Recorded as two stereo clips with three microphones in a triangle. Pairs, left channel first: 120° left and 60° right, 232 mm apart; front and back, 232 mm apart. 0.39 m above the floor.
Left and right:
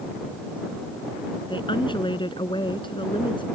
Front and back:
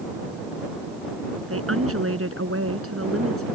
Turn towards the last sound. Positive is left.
turn(degrees=-170)